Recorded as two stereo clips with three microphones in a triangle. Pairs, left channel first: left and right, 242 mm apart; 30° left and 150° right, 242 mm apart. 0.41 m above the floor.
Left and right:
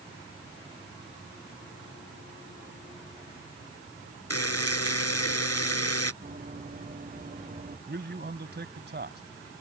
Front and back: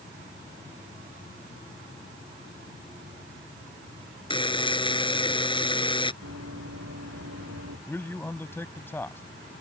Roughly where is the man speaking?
Ahead right.